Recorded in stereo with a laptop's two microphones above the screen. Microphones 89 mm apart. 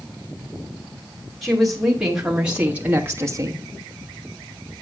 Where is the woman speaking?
Centre (ahead or behind), 2.5 m; by 3.6 s 45° right (ahead or behind), 0.9 m.